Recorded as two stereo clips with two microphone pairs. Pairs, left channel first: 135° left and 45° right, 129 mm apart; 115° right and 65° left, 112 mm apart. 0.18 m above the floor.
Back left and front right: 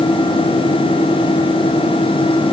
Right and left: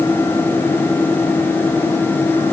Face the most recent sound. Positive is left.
No sound to turn to.